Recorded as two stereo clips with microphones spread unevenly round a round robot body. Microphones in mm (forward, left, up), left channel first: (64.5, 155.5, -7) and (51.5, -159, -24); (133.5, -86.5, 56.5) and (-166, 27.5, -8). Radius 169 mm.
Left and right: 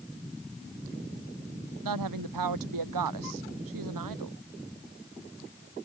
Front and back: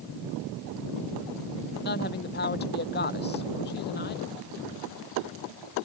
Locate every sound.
1.8 s a woman speaking: 80° right